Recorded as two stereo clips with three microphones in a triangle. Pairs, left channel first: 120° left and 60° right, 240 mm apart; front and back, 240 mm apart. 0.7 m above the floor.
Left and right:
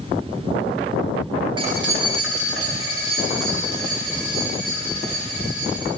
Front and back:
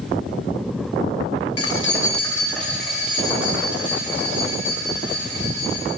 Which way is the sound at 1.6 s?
10° left.